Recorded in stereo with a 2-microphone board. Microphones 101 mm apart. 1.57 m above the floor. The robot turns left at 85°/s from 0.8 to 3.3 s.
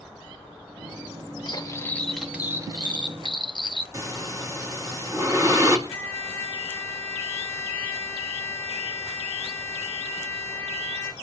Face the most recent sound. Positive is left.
turn(degrees=-75)  # may be behind; listen again after turning